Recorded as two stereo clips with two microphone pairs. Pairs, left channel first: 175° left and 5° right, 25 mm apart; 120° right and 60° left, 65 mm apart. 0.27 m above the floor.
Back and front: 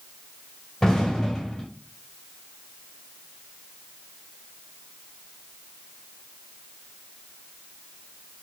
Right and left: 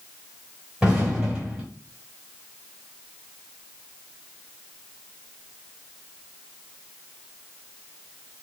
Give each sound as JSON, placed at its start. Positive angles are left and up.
{"t": 0.8, "sound": "an explosion", "azimuth_deg": 135, "distance_m": 2.0}